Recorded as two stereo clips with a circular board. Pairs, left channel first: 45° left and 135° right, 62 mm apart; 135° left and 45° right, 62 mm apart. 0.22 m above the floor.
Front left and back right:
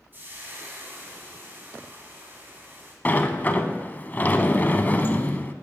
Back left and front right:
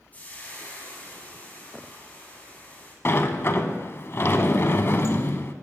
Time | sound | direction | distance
0.1 | frying | 175° right | 1.9 m
3.0 | a sliding door | 95° left | 0.5 m